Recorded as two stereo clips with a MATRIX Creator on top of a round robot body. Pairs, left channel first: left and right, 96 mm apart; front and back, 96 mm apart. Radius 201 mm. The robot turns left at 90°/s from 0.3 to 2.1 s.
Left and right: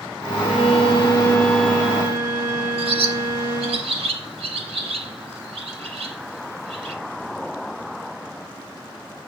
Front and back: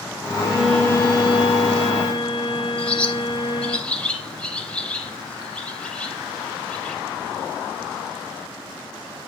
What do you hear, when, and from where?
0.4 s a violin: 125° left, 5 m; by 3.8 s 30° right, 5 m
2.8 s a bird: 80° right, 3.5 m